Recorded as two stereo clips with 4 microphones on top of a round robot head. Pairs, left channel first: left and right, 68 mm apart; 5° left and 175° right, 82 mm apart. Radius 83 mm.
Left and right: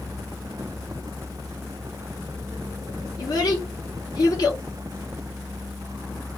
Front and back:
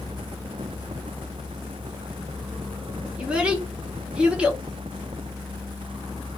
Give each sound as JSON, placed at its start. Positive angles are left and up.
{"t": 3.2, "sound": "a child speaking", "azimuth_deg": 110, "distance_m": 1.3}